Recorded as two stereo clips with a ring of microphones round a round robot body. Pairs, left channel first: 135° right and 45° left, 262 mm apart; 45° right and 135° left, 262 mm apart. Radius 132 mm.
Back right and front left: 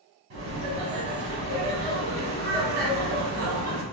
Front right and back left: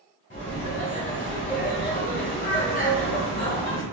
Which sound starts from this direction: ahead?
Laughter, at 0.3 s.